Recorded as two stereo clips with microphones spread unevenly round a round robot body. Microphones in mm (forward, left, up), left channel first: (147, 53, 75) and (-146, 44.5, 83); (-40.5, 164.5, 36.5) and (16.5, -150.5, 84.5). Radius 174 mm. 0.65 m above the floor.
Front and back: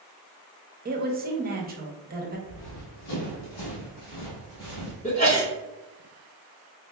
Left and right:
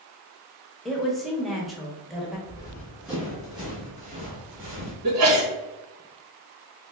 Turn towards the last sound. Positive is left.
turn(degrees=-55)